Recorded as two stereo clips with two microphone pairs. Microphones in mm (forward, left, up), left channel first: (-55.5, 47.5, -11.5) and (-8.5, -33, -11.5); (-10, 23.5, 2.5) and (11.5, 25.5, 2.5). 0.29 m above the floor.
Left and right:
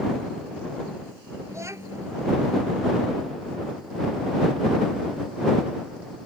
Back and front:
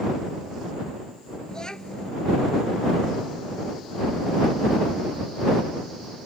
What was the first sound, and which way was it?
A child speaking, 120° right.